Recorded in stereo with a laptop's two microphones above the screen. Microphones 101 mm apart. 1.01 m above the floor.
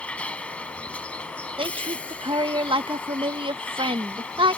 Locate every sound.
0.0 s a vehicle: 10° left (ahead or behind)
1.6 s a woman speaking: 60° right (ahead or behind)